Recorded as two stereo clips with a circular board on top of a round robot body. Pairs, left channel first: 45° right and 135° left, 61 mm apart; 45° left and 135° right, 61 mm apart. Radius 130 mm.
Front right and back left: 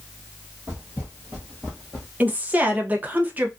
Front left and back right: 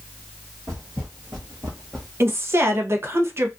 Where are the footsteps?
170° right, 1.1 m; by 2.1 s 30° right, 0.8 m.